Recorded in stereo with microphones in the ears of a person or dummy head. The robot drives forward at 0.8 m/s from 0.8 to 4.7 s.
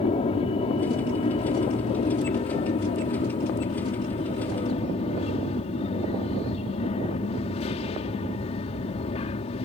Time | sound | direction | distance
0.0 | an aircraft | 25° left (ahead or behind) | ?